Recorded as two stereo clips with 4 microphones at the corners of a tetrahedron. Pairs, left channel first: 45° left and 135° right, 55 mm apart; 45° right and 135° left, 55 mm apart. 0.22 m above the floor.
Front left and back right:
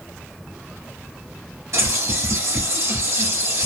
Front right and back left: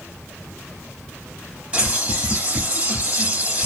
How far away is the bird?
About 3 m.